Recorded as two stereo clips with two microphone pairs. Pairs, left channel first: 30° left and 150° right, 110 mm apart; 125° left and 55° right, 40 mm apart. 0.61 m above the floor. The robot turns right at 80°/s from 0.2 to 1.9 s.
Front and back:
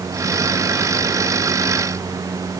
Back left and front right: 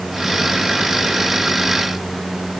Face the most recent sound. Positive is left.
No sound to turn to.